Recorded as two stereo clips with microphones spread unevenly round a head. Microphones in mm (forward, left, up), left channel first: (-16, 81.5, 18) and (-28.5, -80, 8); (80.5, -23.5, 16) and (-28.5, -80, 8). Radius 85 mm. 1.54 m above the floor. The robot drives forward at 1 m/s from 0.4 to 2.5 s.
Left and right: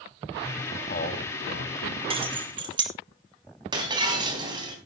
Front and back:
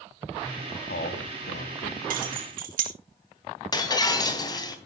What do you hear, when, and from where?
0.7 s a man speaking: 35° left, 2.5 m; by 2.0 s 65° left, 1.7 m
2.1 s keys jangling: 150° right, 2 m; by 2.9 s 155° right, 2.5 m
3.7 s breaking glass: 25° right, 3.5 m